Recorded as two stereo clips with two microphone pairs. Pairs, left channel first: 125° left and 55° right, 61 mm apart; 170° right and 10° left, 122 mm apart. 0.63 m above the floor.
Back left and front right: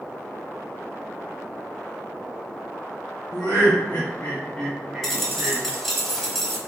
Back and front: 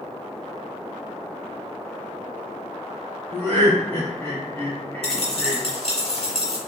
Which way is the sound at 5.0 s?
150° right.